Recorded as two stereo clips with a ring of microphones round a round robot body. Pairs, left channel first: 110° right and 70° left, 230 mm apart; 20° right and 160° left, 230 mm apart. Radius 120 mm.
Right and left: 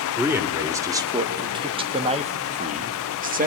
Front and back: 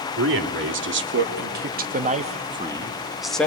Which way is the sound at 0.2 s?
145° left.